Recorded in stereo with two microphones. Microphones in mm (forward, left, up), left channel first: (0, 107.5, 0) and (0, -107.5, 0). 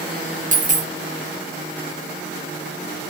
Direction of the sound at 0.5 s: 35° right (ahead or behind).